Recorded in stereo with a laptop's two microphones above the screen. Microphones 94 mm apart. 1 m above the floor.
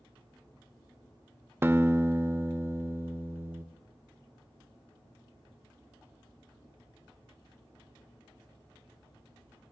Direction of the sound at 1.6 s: 25° right (ahead or behind).